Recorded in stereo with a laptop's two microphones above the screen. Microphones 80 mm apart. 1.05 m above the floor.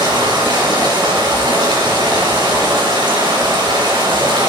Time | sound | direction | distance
0.0 | running water | 75° right (ahead or behind) | 5 m